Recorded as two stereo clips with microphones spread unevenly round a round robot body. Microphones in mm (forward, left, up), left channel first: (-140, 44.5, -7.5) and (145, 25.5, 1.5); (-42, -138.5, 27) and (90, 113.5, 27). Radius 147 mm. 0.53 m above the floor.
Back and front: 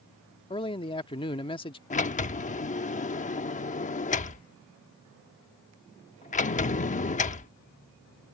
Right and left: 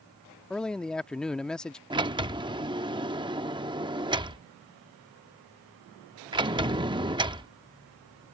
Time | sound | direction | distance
0.5 | a man speaking | 160° left | ?
1.9 | a sliding door | 130° left | ?